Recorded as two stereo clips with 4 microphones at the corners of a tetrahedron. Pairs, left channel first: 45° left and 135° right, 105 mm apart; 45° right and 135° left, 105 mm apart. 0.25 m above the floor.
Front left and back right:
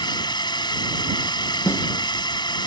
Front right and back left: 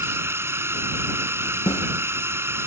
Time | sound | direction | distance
0.0 | a drone | 75° left | ?
1.7 | a snare drum | 20° right | ?